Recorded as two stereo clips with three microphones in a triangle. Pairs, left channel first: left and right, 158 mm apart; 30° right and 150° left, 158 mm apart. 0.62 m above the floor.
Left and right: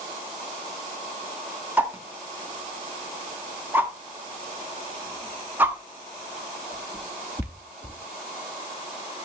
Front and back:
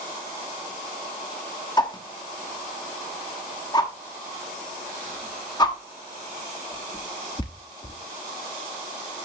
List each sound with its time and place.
1.8 s a whoosh: 25° right, 0.8 m